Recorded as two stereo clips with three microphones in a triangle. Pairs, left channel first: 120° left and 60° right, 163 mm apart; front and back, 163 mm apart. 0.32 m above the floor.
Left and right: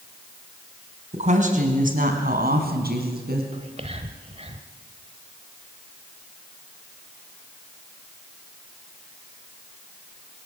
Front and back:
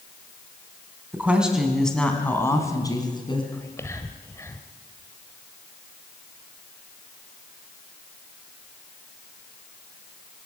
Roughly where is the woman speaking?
Right.